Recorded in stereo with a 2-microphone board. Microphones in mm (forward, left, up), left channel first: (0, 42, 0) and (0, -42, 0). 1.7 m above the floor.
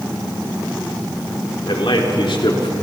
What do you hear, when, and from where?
1.7 s a man speaking: 80° left, 4.5 m